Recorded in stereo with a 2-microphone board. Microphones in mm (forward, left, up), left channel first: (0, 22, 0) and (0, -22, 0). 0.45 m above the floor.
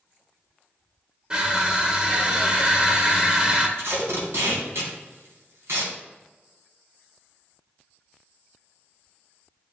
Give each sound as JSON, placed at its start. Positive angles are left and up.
{"t": 1.3, "sound": "crushing", "side_deg": -20, "distance_m": 1.1}
{"t": 3.8, "sound": "tape being pulled", "side_deg": -75, "distance_m": 2.5}